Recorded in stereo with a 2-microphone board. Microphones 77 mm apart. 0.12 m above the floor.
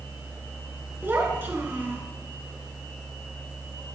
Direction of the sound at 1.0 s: 25° right (ahead or behind).